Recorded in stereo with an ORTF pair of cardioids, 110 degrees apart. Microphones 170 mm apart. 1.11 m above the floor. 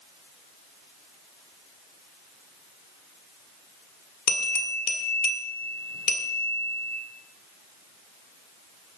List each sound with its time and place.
4.3 s a bell: 65° left, 1.9 m